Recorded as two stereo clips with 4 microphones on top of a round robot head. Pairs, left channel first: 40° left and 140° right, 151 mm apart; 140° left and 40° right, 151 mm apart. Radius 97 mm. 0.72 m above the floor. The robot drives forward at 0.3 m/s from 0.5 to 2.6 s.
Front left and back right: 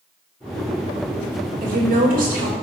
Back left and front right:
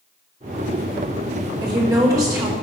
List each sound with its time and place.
1.6 s a woman speaking: 105° right, 3 m; by 2.5 s 110° right, 3 m